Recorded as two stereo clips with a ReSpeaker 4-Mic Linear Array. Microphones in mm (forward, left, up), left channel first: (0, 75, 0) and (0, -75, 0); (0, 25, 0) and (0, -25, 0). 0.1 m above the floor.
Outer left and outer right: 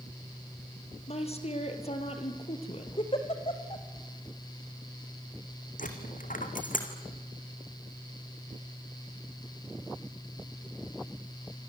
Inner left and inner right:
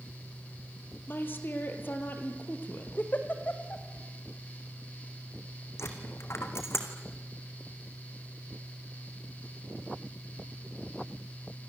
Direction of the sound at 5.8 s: 65° left (ahead or behind).